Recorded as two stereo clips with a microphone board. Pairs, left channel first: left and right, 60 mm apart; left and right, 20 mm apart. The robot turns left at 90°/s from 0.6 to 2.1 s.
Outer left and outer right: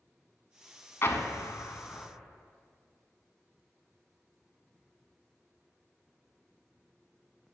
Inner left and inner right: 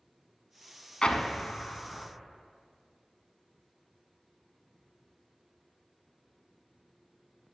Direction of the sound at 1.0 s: 45° left (ahead or behind).